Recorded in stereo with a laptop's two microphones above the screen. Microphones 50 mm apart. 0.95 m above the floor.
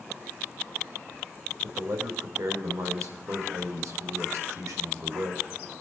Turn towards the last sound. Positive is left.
turn(degrees=-65)  # may be behind; listen again after turning